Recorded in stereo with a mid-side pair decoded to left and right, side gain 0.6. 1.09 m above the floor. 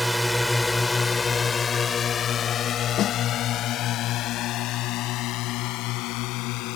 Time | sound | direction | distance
0.0 | a drone | 5° right | ?
3.0 | a snare drum | 55° left | ?